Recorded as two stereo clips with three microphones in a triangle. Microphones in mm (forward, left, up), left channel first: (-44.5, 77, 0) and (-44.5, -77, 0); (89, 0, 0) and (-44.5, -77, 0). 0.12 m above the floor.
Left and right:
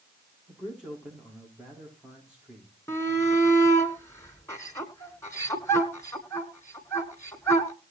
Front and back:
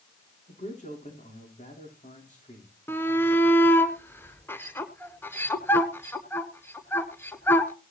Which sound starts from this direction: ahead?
A man speaking, at 0.5 s.